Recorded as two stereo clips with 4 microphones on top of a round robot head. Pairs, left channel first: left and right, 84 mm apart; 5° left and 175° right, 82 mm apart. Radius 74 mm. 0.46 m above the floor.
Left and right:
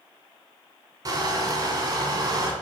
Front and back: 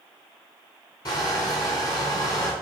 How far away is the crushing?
About 2 m.